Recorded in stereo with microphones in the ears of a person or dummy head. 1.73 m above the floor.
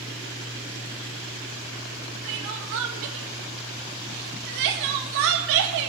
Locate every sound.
2.2 s crying: 60° right (ahead or behind), 1.6 m